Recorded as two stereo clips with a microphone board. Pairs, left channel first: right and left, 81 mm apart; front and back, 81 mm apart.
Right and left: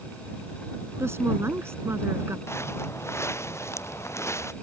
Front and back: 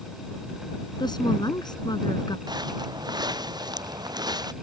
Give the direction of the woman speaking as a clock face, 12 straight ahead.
11 o'clock.